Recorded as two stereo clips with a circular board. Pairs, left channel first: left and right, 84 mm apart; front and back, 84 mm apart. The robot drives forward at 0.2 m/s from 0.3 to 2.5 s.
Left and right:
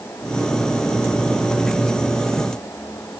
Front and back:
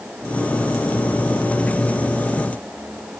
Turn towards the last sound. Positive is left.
No sound to turn to.